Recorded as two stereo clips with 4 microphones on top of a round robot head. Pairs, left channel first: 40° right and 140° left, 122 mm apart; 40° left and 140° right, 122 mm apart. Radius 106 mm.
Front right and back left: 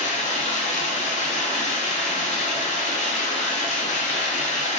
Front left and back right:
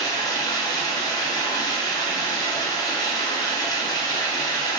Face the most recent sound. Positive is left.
turn(degrees=-20)